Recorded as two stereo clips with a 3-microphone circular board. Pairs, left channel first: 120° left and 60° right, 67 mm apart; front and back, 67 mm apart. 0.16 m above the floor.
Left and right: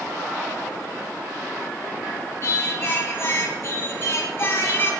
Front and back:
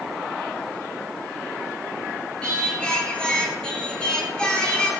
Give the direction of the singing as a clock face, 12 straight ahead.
10 o'clock.